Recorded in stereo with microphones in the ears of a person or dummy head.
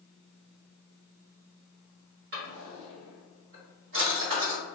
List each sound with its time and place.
2.3 s a drawer: 55° right (ahead or behind), 1.5 m